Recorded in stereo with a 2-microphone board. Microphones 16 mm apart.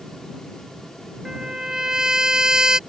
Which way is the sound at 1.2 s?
40° right (ahead or behind).